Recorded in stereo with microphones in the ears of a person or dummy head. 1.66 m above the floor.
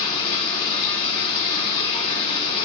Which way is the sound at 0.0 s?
35° left (ahead or behind).